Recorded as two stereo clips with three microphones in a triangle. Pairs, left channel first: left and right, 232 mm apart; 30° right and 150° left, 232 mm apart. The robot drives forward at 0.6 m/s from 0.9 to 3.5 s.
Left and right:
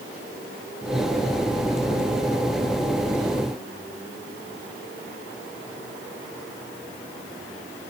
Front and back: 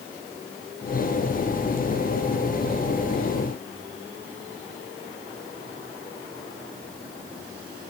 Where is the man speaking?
No man speaking in this recording.